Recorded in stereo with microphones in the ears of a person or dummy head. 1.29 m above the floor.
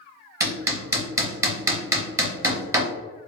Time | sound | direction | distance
0.4 | hammering | 20° right (ahead or behind) | 0.6 m